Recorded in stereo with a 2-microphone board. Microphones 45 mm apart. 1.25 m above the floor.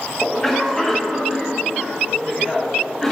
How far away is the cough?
About 1.1 m.